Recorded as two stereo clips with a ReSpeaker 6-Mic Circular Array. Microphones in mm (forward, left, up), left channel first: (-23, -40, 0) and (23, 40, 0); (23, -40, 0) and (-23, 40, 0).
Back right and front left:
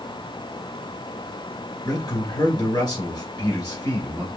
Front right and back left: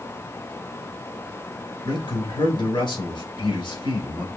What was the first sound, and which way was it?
A man speaking, 85° right.